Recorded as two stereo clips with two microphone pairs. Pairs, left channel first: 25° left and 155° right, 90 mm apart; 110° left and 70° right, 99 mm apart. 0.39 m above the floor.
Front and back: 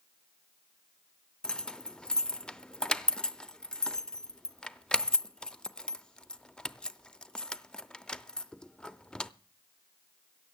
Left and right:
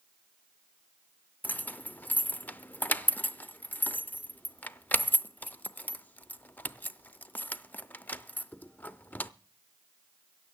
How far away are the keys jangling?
About 0.5 m.